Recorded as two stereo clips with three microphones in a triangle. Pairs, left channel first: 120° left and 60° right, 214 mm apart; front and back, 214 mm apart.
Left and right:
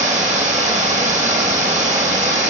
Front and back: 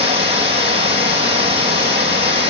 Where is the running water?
115° right, 2.5 m.